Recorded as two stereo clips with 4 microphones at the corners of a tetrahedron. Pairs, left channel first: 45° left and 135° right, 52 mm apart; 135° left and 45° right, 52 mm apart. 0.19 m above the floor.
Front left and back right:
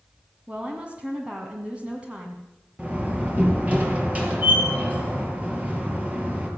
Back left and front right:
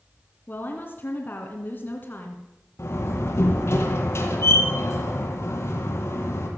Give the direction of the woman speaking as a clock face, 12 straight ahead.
6 o'clock.